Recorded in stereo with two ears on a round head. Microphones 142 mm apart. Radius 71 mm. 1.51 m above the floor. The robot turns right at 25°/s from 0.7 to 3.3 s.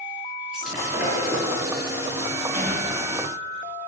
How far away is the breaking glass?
About 7.5 m.